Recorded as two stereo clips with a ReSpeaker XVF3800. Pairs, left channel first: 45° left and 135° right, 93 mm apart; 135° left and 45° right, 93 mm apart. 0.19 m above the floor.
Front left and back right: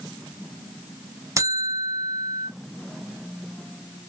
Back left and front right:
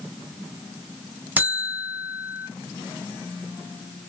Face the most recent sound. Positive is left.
turn(degrees=-105)